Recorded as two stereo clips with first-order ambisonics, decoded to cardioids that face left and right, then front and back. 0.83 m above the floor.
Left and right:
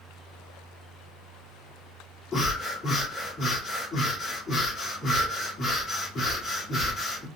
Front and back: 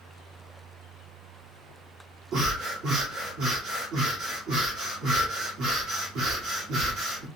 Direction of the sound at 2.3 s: 160° left.